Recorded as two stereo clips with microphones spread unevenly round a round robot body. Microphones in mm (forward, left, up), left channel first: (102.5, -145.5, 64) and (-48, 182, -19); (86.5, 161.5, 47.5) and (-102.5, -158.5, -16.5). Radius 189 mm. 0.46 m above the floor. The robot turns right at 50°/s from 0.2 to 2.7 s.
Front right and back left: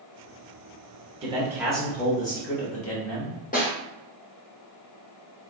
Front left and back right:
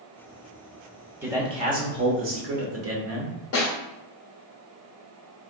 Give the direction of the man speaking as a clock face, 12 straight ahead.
6 o'clock.